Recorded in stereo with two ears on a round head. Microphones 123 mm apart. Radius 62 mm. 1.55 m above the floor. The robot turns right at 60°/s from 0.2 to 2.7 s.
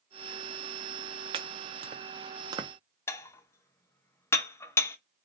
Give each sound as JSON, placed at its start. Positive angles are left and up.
{"t": 1.3, "sound": "chopping", "side_deg": -35, "distance_m": 0.5}
{"t": 3.1, "sound": "dishes clattering", "side_deg": 20, "distance_m": 0.5}